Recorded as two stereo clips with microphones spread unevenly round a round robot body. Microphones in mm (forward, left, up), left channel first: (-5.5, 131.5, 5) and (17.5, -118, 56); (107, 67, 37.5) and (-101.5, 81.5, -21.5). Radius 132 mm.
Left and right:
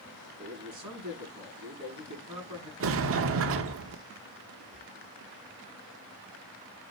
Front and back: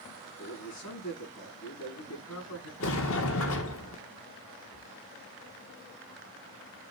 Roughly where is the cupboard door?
Ahead.